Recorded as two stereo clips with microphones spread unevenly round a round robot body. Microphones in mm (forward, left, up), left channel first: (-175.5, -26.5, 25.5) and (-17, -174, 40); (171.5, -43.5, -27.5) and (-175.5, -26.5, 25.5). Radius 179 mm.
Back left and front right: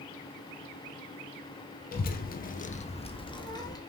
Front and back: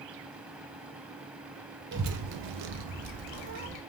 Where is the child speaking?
115° left, 0.6 m; by 3.8 s 150° right, 1.4 m.